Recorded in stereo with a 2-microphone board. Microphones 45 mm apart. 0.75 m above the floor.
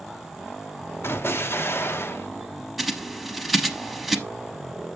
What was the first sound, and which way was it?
An explosion, 60° left (ahead or behind).